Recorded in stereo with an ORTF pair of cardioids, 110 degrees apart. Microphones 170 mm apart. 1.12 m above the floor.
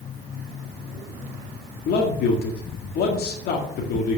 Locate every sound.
1.9 s a man speaking: 70° left, 1.9 m